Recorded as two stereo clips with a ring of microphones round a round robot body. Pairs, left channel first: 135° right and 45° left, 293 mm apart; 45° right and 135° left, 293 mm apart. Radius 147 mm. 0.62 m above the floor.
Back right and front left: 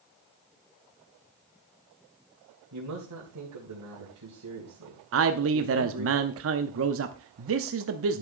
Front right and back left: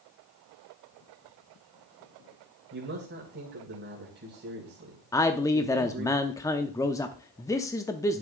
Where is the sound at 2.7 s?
80° left, 3 m.